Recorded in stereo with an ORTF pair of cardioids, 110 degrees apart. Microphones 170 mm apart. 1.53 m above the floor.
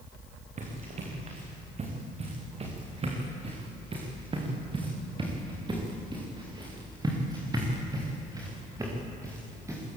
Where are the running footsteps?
45° right, 7.5 m; by 10.0 s 15° right, 10 m.